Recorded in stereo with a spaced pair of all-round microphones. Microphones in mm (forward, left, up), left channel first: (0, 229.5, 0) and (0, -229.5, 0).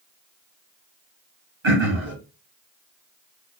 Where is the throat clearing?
80° right, 1.4 m.